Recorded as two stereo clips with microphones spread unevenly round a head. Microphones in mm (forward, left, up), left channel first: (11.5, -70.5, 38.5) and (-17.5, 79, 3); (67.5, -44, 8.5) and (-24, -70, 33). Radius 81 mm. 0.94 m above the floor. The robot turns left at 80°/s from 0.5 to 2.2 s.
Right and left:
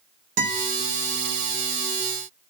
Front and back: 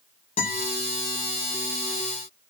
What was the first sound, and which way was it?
A guitar, 60° left.